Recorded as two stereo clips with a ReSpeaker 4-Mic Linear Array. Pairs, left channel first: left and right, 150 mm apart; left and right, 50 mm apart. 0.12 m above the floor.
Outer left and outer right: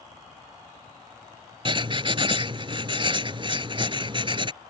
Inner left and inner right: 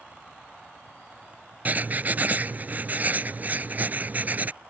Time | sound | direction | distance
1.6 | writing | 35° right (ahead or behind) | ?